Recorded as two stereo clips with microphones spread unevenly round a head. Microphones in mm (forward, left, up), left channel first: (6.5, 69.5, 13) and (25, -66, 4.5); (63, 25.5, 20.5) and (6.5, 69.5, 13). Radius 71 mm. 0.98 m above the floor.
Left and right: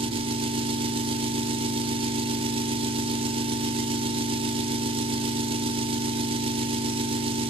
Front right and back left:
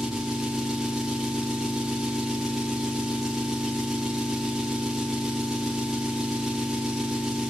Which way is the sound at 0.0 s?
135° right.